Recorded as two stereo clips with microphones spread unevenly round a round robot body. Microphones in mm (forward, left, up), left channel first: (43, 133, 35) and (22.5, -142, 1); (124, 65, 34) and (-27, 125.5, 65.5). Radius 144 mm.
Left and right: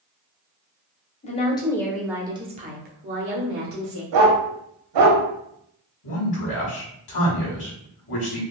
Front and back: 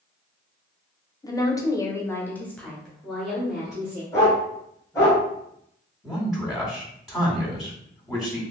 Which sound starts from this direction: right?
A dog barking, at 4.1 s.